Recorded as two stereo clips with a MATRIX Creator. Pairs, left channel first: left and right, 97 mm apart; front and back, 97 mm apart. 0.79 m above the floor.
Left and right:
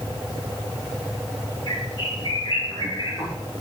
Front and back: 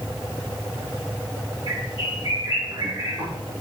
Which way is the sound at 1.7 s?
140° left.